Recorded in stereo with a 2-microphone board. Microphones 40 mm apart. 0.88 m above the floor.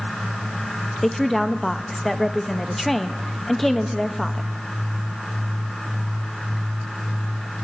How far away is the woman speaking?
About 0.6 m.